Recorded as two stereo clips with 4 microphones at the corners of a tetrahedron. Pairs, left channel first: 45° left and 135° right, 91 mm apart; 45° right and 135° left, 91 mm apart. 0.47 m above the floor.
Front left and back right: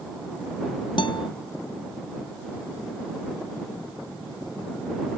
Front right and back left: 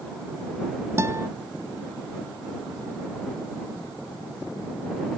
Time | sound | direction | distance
1.0 | a guitar | 75° left | ?